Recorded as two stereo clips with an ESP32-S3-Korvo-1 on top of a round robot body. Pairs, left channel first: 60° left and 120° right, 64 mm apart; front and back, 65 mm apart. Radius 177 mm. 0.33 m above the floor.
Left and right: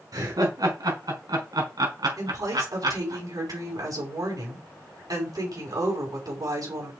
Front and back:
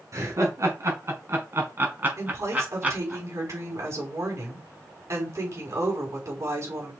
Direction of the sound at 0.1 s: 145° right.